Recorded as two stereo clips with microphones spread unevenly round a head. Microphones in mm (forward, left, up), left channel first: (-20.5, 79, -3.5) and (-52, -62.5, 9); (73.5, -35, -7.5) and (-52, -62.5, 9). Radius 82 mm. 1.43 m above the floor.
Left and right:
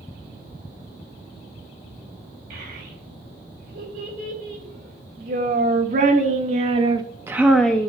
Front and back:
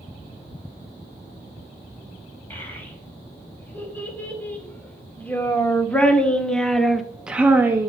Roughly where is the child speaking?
Ahead right.